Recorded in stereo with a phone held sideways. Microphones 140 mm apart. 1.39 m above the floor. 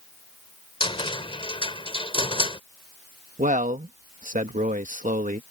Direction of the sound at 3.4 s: 70° right (ahead or behind).